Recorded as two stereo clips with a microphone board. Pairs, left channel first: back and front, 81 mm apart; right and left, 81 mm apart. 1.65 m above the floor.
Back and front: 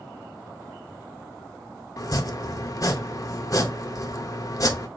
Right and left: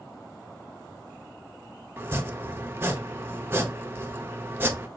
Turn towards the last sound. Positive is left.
turn(degrees=145)